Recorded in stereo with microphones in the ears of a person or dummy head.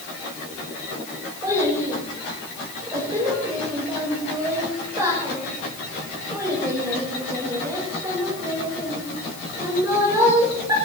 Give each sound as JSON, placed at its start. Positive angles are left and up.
{"t": 1.4, "sound": "a child speaking", "side_deg": -20, "distance_m": 4.5}